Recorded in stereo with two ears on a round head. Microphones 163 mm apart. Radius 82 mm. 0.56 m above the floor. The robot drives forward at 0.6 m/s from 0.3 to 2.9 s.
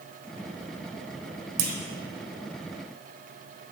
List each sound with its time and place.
1.6 s a clunk: 60° right (ahead or behind), 1.0 m; by 1.8 s 55° right (ahead or behind), 1.0 m